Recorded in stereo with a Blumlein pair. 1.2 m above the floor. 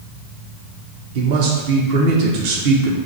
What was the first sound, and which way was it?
A man speaking, 50° right.